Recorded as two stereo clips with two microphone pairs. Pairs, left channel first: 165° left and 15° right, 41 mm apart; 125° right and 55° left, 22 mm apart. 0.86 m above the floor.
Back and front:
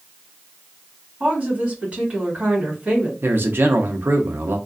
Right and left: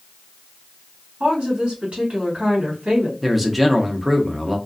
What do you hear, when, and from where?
1.2 s a woman speaking: 40° left, 1.6 m
3.2 s a man speaking: 25° right, 0.7 m